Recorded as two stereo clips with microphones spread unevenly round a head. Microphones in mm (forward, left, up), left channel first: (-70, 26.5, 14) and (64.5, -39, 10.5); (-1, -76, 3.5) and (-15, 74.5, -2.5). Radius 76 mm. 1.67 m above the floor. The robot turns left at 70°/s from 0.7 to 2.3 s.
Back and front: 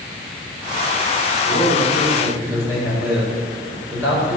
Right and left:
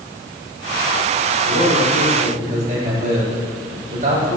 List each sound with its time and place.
1.4 s a man speaking: 110° left, 7.5 m; by 4.4 s 50° left, 7.5 m